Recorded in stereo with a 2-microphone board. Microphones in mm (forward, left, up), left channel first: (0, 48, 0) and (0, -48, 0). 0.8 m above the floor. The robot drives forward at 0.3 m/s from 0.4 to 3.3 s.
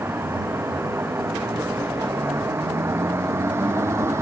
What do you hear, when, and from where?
0.0 s a vehicle: 25° right (ahead or behind); by 4.2 s 30° right (ahead or behind)